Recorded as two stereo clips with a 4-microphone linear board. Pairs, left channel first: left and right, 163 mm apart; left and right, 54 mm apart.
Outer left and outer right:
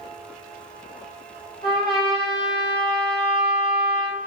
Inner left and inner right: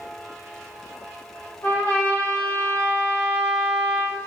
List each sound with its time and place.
1.6 s a trumpet: 30° left (ahead or behind), 3 m